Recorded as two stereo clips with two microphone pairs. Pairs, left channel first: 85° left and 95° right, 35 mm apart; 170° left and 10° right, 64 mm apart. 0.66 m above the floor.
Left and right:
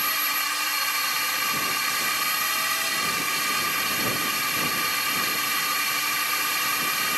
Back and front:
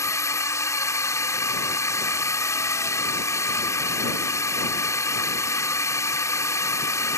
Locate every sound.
0.0 s a drone: straight behind